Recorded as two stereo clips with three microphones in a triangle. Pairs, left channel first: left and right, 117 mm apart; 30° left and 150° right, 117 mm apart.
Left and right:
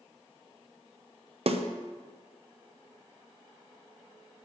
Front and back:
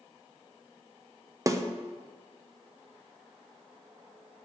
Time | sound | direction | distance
1.5 | a snare drum | 90° right | 0.6 m